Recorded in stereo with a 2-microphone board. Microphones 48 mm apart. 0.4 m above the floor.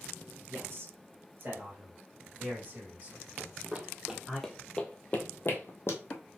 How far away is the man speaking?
About 3 m.